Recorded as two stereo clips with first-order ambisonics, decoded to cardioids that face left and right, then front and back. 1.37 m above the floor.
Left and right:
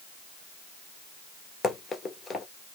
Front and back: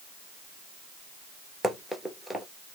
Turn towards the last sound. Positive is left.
turn(degrees=120)